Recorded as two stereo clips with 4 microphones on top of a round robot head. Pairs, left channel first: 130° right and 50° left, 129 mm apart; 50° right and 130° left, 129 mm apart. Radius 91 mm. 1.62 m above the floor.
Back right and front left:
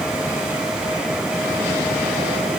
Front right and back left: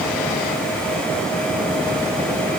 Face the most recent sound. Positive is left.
No sound to turn to.